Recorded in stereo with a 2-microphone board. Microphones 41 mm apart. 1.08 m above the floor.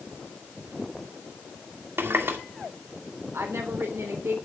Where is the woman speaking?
85° right, 3.5 m.